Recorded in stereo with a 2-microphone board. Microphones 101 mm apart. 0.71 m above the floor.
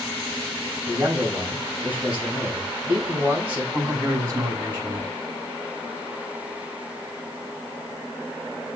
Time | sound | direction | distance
0.9 | a man speaking | 15° right (ahead or behind) | 5 m
3.7 | a man speaking | 30° right (ahead or behind) | 5 m